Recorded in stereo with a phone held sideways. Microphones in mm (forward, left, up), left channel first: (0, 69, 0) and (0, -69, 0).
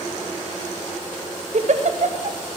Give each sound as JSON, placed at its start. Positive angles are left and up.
{"t": 1.5, "sound": "a giggle", "side_deg": -65, "distance_m": 0.5}